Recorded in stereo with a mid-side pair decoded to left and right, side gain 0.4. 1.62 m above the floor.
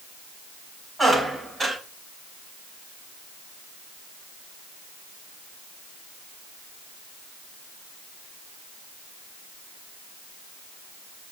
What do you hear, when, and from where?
1.0 s a squeak: 25° right, 4.5 m